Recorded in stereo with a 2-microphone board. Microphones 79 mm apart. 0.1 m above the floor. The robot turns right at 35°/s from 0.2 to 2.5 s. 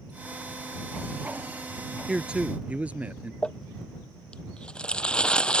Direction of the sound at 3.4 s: 15° left (ahead or behind).